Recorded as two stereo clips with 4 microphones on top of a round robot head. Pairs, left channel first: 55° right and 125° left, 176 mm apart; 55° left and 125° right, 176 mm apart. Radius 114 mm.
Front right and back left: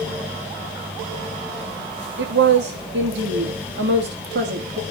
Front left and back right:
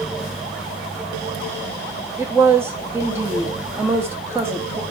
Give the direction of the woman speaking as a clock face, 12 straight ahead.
7 o'clock.